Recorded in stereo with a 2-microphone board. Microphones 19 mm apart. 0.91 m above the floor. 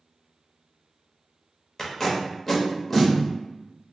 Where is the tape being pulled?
25° left (ahead or behind), 0.7 m.